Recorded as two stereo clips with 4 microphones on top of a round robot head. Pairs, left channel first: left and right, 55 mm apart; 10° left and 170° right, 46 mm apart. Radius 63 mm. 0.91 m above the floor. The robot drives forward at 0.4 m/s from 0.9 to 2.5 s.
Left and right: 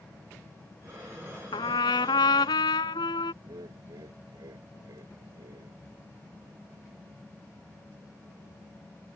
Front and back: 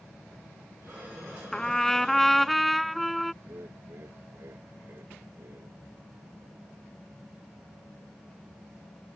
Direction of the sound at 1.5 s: 90° left.